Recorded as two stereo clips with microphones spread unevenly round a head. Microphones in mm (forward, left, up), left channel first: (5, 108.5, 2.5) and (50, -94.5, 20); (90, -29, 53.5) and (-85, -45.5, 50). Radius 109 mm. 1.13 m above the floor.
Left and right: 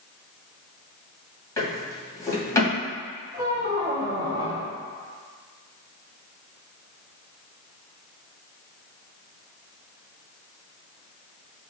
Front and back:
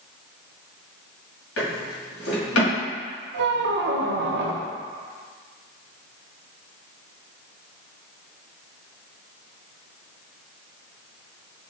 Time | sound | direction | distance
1.6 | a drawer | 25° left | 1.8 m
3.3 | a squeak | 150° right | 0.6 m